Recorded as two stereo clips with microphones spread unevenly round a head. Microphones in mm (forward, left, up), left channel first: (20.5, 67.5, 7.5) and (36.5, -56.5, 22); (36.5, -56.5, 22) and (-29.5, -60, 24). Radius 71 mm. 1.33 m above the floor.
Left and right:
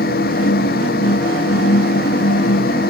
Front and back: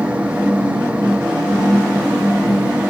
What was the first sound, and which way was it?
A fan, 100° left.